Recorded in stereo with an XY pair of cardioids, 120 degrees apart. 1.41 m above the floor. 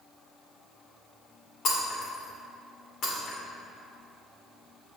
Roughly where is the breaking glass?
Ahead left.